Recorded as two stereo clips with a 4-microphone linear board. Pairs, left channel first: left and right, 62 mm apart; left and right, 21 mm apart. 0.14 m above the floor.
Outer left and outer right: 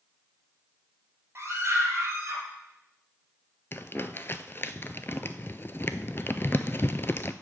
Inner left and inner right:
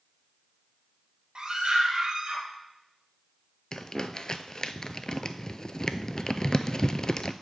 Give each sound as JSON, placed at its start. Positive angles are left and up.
{"t": 1.4, "sound": "a scream", "side_deg": -40, "distance_m": 2.5}
{"t": 3.7, "sound": "crumpling", "side_deg": 40, "distance_m": 0.5}